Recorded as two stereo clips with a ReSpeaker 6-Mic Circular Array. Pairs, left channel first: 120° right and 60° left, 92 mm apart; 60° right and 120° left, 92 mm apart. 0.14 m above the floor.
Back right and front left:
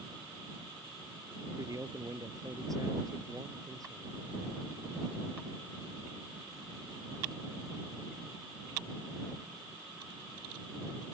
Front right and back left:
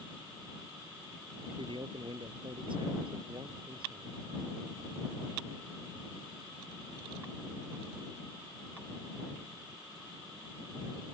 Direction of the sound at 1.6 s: 105° left.